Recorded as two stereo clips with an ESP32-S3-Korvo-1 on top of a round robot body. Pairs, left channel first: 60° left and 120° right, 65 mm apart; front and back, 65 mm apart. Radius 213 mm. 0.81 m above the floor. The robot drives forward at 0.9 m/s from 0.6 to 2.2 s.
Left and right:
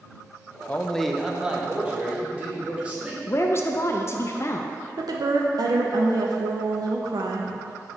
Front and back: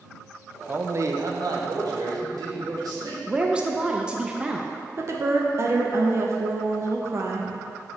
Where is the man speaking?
120° left, 0.5 m; by 3.2 s 170° left, 1.6 m.